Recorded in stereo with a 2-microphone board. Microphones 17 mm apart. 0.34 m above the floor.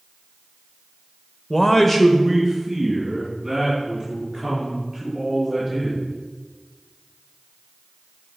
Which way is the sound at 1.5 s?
20° left (ahead or behind).